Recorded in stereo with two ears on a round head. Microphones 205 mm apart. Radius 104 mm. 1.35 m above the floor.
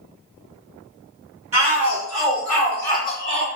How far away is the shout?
About 1.4 m.